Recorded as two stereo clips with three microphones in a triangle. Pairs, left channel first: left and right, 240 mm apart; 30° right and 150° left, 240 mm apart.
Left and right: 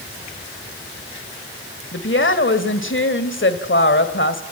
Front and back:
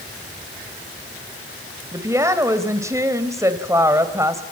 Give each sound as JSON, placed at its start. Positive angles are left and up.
{"t": 1.9, "sound": "a woman speaking", "azimuth_deg": 75, "distance_m": 1.9}